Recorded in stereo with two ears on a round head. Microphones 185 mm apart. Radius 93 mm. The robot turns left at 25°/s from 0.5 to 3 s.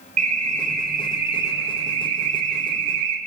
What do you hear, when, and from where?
0.2 s an alarm: 35° right, 4 m; by 3.2 s 100° right, 4 m